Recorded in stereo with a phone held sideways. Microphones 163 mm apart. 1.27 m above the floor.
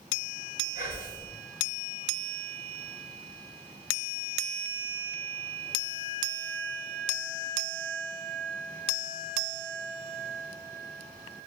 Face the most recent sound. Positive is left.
turn(degrees=55)  # may be behind; listen again after turning